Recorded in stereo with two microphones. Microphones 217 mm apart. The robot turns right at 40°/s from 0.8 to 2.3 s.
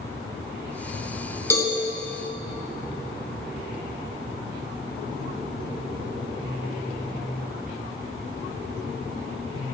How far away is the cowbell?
About 1.1 m.